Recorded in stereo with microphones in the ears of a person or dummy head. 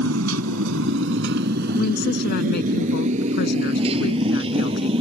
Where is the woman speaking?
50° left (ahead or behind).